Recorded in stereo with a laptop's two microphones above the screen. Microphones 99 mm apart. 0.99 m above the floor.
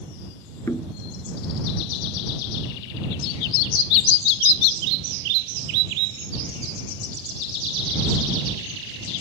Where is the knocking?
30° left (ahead or behind).